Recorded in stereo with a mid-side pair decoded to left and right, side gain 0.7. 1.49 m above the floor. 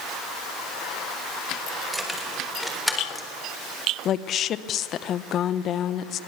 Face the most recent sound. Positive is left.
turn(degrees=45)